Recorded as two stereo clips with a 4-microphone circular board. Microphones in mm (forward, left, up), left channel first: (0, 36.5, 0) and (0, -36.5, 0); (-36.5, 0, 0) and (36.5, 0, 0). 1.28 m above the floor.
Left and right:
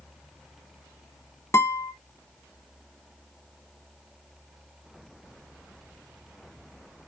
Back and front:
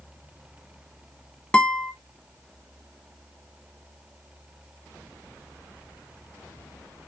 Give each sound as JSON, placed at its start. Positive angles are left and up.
{"t": 1.5, "sound": "a guitar", "azimuth_deg": 115, "distance_m": 1.0}